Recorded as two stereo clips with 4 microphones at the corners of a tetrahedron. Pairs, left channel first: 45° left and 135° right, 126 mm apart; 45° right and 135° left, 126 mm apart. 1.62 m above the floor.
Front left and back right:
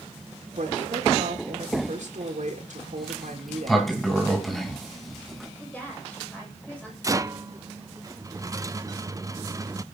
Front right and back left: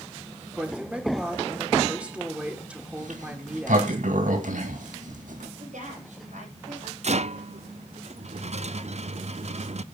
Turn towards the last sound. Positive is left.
turn(degrees=165)